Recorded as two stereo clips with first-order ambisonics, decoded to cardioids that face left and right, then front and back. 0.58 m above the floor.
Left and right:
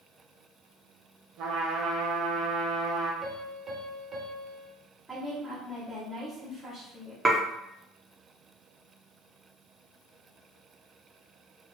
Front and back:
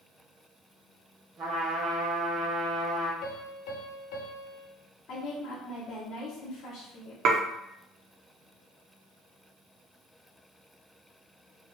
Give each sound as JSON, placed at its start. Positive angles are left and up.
{"t": 1.4, "sound": "a trumpet", "azimuth_deg": -120, "distance_m": 1.2}
{"t": 3.2, "sound": "a piano", "azimuth_deg": -15, "distance_m": 0.8}
{"t": 5.1, "sound": "a woman speaking", "azimuth_deg": -5, "distance_m": 1.1}
{"t": 7.2, "sound": "dishes clattering", "azimuth_deg": -165, "distance_m": 0.5}